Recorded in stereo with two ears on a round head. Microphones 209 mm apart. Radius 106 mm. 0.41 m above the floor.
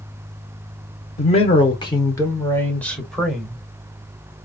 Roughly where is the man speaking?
Left.